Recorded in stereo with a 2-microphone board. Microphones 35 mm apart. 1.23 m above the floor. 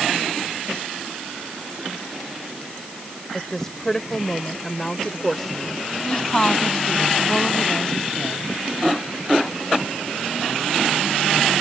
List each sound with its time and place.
3.3 s a woman speaking: 15° left (ahead or behind); by 5.9 s 10° left (ahead or behind)
6.1 s a woman speaking: 20° left (ahead or behind)